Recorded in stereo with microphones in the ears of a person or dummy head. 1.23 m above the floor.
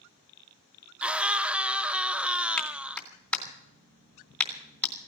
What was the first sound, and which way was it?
A scream, 5° right (ahead or behind).